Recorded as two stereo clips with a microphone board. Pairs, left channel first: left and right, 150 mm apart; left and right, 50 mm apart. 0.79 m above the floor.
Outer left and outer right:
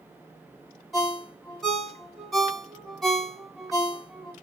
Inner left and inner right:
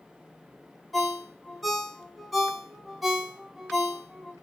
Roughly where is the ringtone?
Centre.